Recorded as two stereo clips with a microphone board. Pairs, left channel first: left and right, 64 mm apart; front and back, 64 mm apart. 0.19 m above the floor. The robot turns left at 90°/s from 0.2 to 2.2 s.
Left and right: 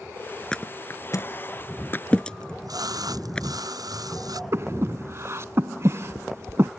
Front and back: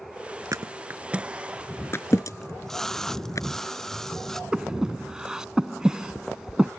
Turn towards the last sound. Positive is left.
turn(degrees=-105)